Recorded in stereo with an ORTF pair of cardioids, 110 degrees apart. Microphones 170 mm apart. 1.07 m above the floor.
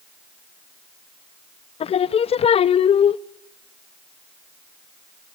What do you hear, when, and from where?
1.8 s singing: 35° left, 0.6 m